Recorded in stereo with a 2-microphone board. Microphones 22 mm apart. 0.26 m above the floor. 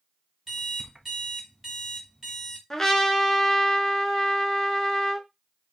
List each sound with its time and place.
0.5 s an alarm clock: 10° right (ahead or behind), 1.1 m
2.7 s a trumpet: 20° left (ahead or behind), 0.5 m